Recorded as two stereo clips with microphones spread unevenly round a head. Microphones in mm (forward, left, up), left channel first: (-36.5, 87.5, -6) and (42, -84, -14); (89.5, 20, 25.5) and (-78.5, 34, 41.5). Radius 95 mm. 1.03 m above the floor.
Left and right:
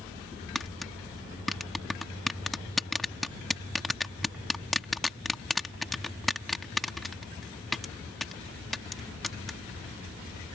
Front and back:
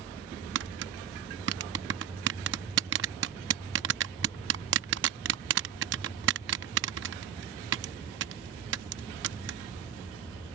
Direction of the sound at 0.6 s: 155° right.